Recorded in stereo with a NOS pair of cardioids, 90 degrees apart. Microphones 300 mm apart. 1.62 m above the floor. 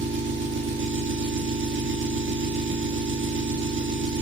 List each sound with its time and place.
0.0 s an engine running: 40° right, 3 m